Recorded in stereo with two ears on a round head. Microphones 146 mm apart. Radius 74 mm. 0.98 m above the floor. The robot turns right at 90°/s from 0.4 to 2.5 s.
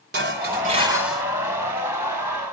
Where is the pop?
I don't hear a pop.